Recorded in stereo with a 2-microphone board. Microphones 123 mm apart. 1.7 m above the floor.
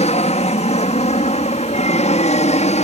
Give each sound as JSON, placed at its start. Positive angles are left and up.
{"t": 0.0, "sound": "an aircraft", "side_deg": 65}